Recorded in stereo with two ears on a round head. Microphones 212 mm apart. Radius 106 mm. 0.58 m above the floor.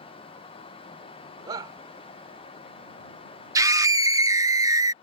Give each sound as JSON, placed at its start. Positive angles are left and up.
{"t": 1.5, "sound": "a shout", "side_deg": -20}
{"t": 3.5, "sound": "a scream", "side_deg": -15}